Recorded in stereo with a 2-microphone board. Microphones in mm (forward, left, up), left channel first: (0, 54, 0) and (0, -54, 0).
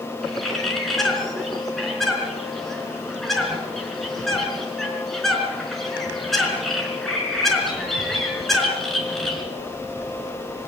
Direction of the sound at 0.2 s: 5° left (ahead or behind).